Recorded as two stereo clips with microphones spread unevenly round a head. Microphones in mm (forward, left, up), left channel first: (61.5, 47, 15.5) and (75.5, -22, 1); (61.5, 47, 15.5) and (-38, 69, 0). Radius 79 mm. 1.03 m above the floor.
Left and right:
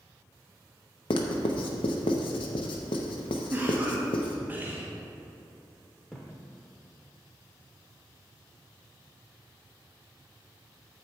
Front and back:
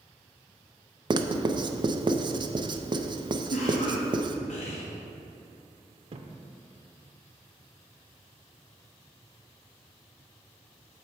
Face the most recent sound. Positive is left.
turn(degrees=175)